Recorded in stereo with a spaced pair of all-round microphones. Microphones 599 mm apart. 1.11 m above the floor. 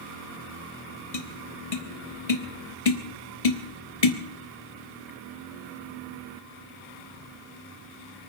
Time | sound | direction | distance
1.1 | tapping | 70° left (ahead or behind) | 1.3 m